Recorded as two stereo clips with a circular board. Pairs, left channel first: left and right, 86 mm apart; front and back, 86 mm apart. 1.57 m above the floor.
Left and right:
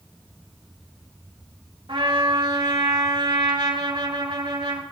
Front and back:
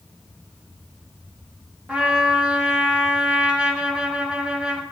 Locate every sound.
1.9 s a trumpet: 105° right, 2.5 m